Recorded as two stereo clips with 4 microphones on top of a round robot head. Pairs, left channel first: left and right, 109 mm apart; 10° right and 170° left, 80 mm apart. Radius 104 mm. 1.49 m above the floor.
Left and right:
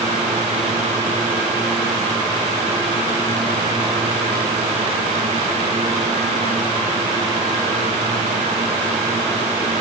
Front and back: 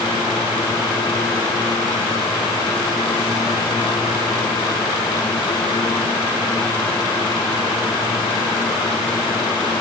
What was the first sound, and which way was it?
Only background noise.